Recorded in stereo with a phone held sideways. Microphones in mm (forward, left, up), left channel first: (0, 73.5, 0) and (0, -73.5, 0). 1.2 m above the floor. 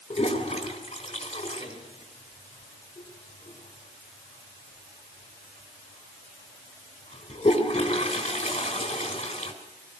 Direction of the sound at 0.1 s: 45° left (ahead or behind).